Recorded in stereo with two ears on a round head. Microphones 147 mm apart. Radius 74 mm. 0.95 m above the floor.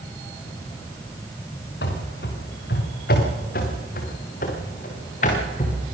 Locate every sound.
1.8 s running footsteps: 70° left (ahead or behind), 5 m; by 5.8 s 45° left (ahead or behind), 5 m